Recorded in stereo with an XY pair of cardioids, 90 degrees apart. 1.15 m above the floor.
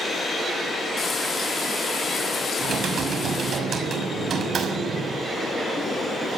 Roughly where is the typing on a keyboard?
Ahead right.